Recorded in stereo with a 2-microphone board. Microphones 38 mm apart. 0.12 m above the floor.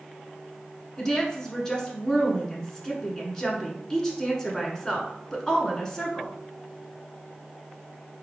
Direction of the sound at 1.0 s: 20° left (ahead or behind).